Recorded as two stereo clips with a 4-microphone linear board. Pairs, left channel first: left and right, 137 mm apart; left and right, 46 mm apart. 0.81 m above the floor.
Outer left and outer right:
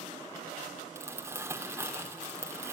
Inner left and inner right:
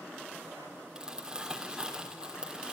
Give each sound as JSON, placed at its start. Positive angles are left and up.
{"t": 0.9, "sound": "crumpling", "side_deg": -20, "distance_m": 3.0}